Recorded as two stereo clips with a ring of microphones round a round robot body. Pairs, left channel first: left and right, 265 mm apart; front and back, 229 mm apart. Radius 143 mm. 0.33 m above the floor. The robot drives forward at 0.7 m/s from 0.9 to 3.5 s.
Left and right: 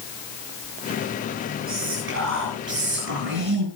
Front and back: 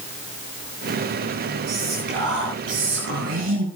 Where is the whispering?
130° right, 6 m; by 3.7 s 135° right, 7 m.